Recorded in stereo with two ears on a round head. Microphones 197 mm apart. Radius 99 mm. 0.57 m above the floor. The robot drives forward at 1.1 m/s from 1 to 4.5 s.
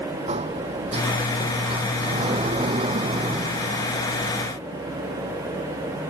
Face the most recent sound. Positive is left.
turn(degrees=-20)  # may be behind; listen again after turning